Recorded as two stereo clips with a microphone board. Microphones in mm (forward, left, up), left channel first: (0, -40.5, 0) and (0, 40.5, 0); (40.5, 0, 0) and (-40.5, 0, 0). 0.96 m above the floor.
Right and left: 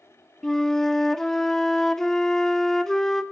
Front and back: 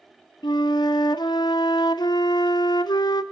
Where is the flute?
5° right, 0.6 m.